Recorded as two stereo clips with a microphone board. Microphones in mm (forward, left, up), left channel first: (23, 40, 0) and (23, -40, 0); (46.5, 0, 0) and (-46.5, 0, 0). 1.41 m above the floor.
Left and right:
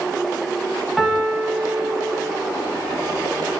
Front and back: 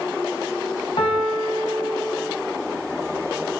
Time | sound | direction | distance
1.0 | a piano | 5° left | 1.3 m